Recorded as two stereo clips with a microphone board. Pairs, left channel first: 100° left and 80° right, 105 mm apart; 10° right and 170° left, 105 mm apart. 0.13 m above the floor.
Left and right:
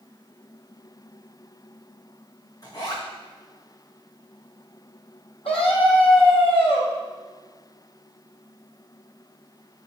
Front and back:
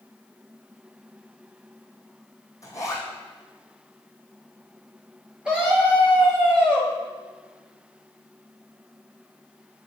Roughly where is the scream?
Left.